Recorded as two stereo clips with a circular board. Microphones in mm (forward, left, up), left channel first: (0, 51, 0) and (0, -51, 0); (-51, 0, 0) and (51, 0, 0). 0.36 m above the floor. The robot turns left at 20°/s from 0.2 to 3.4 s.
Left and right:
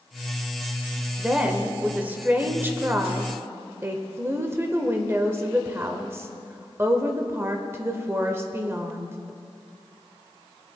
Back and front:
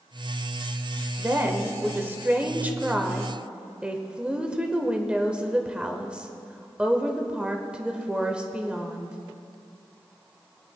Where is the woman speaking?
20° right, 0.9 m; by 9.2 s 65° right, 0.9 m.